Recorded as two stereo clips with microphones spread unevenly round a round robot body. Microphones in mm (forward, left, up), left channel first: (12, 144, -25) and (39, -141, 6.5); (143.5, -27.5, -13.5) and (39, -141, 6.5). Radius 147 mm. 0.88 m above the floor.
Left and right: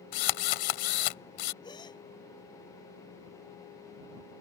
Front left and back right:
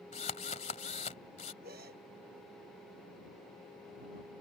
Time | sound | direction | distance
0.1 | a drill | 115° left | ?
1.6 | a gasp | 175° left | ?